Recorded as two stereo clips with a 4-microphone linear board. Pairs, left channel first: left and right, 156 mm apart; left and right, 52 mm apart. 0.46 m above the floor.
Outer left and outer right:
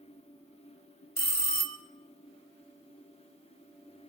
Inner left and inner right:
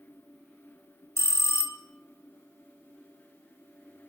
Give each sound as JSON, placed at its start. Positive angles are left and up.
{"t": 1.2, "sound": "a bell", "side_deg": 75, "distance_m": 0.9}